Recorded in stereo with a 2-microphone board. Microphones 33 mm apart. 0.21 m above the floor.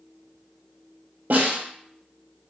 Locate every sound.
1.3 s a snare drum: 75° right (ahead or behind), 2.5 m